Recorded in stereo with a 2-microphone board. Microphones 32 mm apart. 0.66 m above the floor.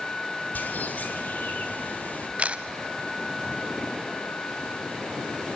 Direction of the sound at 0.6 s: 60° left (ahead or behind).